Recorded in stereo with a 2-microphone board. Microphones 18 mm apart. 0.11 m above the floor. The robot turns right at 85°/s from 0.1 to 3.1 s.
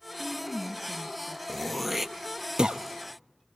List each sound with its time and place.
0.2 s a woman speaking: 65° right, 1.2 m; by 1.4 s 35° left, 1.2 m
1.5 s throat clearing: 25° left (ahead or behind), 0.5 m; by 2.8 s 70° right (ahead or behind), 0.5 m